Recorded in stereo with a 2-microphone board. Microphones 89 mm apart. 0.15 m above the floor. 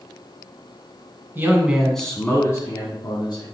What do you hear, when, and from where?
1.4 s a man speaking: 25° right (ahead or behind), 1.5 m; by 3.5 s 50° left (ahead or behind), 2.5 m